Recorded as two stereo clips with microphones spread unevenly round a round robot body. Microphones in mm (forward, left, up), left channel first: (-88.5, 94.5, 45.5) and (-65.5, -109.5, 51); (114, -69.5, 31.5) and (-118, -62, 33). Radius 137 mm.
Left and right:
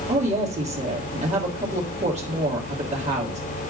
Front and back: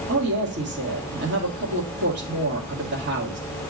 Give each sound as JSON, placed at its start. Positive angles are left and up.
{"t": 0.1, "sound": "a woman speaking", "azimuth_deg": -140, "distance_m": 2.0}